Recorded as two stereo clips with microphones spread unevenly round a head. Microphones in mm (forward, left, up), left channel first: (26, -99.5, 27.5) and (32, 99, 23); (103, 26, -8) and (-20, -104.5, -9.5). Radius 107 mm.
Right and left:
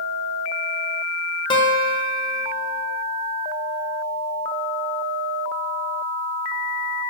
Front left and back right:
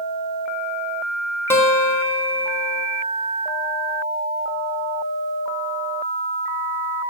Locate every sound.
1.5 s a guitar: 30° right, 0.7 m